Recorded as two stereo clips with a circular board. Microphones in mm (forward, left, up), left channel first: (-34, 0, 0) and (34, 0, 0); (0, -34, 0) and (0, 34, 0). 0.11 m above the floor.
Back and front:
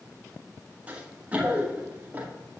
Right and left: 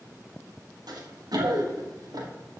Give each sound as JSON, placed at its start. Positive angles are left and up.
{"t": 0.9, "sound": "running footsteps", "azimuth_deg": 70, "distance_m": 3.5}